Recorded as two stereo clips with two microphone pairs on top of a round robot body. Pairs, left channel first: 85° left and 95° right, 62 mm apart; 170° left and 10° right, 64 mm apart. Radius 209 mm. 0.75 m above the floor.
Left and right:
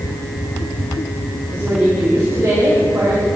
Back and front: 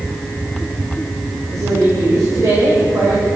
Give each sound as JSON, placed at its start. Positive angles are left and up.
{"t": 1.5, "sound": "a woman speaking", "azimuth_deg": -40, "distance_m": 3.5}